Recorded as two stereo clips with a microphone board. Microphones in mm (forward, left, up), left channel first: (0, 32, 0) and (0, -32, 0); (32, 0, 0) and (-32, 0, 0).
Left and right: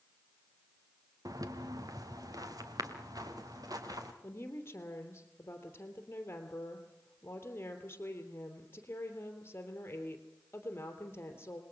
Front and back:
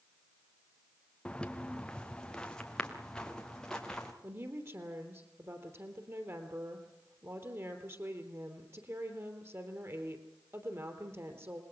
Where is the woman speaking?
140° left, 3 m.